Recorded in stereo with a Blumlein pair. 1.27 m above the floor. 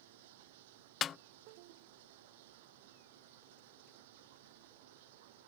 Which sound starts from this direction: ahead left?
A snare drum, at 1.0 s.